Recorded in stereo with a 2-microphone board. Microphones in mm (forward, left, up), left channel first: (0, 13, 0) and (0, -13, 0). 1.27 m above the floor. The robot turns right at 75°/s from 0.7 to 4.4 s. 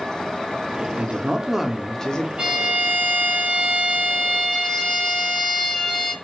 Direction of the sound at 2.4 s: 145° right.